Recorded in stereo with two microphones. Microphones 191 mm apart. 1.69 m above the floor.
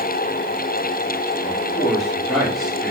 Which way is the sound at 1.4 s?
Centre (ahead or behind).